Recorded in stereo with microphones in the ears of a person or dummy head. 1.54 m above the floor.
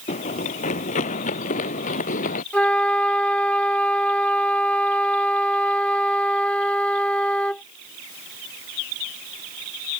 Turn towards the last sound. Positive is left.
turn(degrees=10)  # may be behind; listen again after turning